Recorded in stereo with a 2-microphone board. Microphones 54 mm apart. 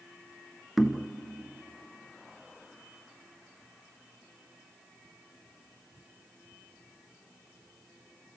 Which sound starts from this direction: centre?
Knocking, at 0.8 s.